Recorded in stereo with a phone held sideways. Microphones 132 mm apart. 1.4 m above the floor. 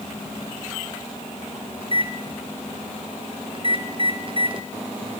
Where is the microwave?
40° right (ahead or behind), 1.0 m.